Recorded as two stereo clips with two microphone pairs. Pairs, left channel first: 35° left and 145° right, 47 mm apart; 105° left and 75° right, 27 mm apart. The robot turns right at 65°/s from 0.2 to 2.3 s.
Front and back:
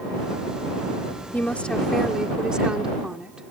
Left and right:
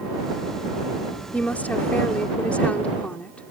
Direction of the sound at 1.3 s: 80° left.